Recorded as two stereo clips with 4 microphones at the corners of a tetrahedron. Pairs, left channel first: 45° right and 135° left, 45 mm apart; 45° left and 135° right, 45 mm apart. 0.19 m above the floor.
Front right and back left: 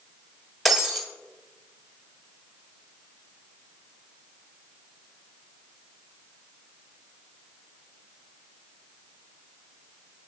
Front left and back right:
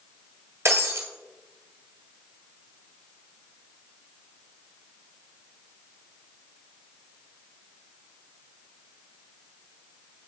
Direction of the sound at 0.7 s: 135° right.